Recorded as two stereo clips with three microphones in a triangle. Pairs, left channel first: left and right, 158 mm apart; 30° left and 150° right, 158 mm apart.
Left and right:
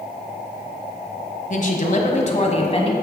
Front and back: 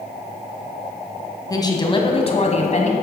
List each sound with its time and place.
1.5 s a woman speaking: 90° left, 1.6 m; by 2.9 s 50° left, 1.6 m